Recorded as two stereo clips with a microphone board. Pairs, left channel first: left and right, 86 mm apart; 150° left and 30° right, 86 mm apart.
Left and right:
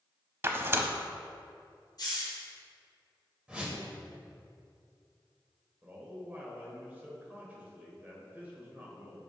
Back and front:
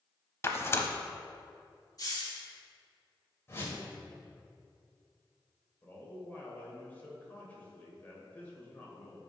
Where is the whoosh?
160° right, 1.5 m.